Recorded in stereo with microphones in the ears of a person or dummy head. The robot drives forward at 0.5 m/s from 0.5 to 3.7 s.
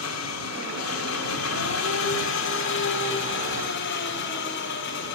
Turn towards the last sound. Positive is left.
turn(degrees=60)  # may be behind; listen again after turning